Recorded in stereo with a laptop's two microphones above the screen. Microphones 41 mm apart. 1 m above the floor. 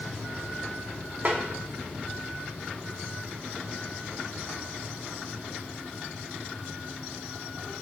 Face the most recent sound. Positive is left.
turn(degrees=-40)  # may be behind; listen again after turning